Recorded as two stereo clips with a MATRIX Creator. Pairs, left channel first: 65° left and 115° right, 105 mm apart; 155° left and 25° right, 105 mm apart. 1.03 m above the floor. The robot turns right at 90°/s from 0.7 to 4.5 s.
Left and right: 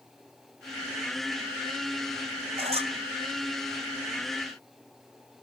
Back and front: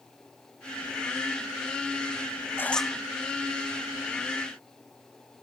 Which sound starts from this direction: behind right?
A squeak, at 2.6 s.